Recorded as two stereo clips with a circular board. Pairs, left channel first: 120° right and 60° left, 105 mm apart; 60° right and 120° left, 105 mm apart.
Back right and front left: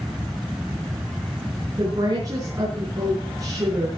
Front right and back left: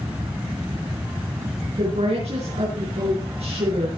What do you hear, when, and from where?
1.8 s a woman speaking: 115° left, 6.5 m